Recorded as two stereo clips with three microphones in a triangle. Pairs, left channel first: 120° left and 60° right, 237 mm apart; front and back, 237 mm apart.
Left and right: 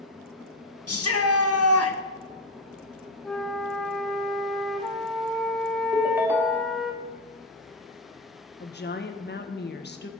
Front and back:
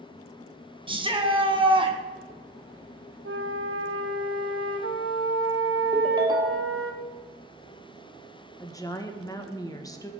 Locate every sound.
0.9 s a shout: 110° left, 1.7 m
3.2 s a flute: 150° right, 1.2 m
5.9 s a ringtone: 130° right, 1.2 m
8.6 s a woman speaking: 75° left, 1.4 m